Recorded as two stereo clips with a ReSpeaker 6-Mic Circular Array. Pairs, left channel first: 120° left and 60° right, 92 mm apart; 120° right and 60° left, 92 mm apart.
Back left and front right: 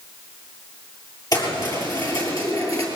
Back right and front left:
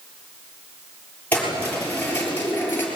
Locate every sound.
1.3 s keys jangling: 165° left, 7.5 m; by 2.9 s 170° left, 6 m